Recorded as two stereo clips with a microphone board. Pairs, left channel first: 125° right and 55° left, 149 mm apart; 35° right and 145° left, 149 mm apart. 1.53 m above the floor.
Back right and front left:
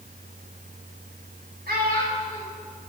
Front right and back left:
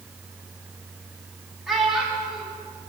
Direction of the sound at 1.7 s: 55° left.